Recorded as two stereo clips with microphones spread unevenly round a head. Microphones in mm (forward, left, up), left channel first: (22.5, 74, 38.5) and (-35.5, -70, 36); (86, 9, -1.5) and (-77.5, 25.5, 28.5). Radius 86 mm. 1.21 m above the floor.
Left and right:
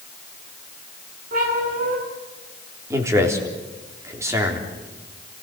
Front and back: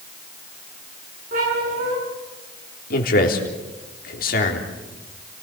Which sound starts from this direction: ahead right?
A man speaking, at 2.9 s.